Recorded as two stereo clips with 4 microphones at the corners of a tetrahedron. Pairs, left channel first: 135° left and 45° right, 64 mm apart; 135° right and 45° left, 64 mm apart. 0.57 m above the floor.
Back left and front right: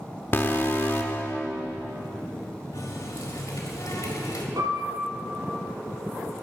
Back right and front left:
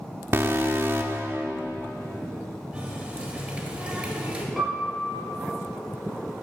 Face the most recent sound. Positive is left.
turn(degrees=-45)